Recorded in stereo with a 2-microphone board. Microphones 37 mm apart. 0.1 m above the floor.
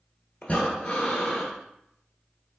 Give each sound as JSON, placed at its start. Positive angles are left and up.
{"t": 0.4, "sound": "breathing", "side_deg": 30, "distance_m": 1.1}